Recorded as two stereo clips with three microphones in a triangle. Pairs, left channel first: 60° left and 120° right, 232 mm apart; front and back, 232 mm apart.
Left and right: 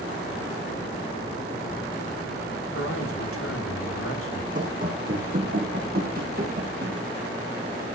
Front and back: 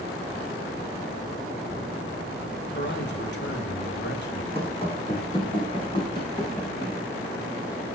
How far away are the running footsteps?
About 5 m.